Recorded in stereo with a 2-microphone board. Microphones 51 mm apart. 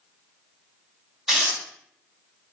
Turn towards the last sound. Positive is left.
turn(degrees=-5)  # may be behind; listen again after turning